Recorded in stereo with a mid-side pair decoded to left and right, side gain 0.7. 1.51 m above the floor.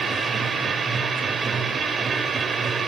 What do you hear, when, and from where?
0.0 s a machine running: 20° right, 4.5 m